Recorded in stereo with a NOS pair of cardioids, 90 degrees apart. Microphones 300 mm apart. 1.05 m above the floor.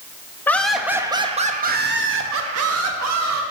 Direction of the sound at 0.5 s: 5° left.